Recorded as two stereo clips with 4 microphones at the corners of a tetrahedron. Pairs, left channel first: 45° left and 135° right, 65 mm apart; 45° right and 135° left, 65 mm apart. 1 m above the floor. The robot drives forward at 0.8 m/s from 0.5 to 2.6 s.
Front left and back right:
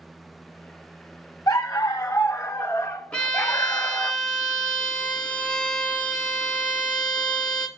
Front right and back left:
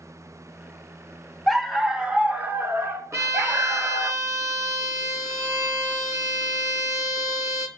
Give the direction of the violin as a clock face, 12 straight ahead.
8 o'clock.